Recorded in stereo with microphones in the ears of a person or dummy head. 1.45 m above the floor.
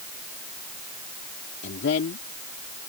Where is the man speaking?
75° left (ahead or behind).